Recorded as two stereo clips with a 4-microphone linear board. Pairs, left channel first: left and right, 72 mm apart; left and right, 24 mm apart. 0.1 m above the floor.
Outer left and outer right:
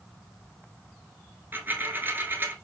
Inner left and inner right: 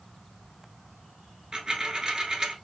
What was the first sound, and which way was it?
A dropped coin, 30° right (ahead or behind).